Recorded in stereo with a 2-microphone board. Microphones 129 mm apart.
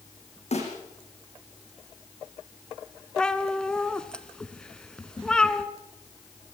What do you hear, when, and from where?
0.5 s a snare drum: 65° left (ahead or behind), 8 m
3.2 s a cat meowing: 5° left (ahead or behind), 1.1 m